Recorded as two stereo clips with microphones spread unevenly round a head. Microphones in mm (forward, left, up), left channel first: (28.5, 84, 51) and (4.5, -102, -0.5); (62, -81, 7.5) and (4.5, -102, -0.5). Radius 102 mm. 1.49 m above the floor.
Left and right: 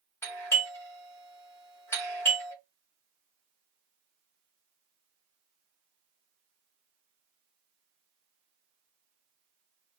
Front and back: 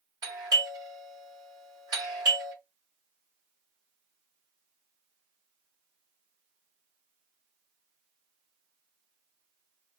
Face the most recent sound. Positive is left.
turn(degrees=160)